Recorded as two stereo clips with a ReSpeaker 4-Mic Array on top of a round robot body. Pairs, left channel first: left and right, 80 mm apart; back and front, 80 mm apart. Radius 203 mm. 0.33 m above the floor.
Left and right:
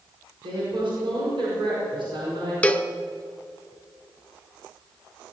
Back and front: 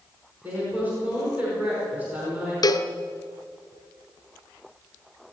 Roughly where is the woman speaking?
Right.